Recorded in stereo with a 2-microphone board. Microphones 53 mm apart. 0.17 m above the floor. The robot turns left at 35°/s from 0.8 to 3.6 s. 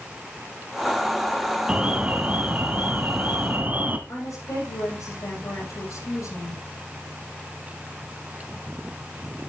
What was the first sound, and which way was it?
An alarm, 40° right.